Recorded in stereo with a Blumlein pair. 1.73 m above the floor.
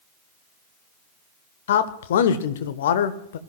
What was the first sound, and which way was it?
A man speaking, 60° left.